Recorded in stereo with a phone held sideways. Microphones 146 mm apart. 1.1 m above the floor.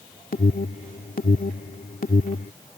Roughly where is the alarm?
Left.